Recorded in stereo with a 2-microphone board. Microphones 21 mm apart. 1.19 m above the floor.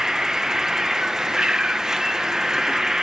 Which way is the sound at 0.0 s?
30° right (ahead or behind).